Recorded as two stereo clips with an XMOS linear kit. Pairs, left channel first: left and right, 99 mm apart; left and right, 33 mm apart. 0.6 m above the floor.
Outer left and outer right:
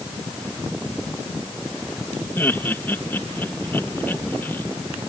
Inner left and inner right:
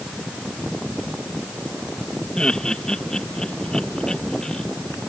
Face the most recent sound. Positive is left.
turn(degrees=20)  # may be behind; listen again after turning